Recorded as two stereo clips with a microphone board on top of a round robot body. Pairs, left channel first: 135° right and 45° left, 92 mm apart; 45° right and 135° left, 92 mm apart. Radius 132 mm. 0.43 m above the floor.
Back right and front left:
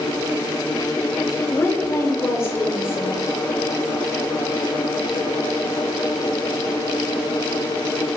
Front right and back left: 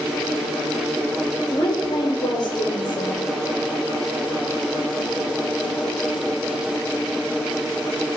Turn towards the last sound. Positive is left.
turn(degrees=-75)